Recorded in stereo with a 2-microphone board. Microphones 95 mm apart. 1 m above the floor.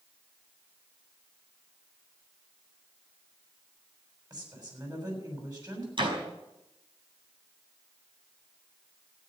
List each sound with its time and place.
4.3 s a woman speaking: 40° right (ahead or behind), 6.5 m
6.0 s a door slam: 55° right (ahead or behind), 5 m